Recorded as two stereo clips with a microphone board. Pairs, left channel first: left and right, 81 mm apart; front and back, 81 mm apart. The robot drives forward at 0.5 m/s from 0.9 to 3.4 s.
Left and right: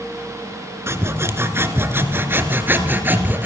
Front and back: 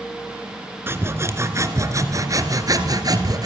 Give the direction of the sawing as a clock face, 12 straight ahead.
4 o'clock.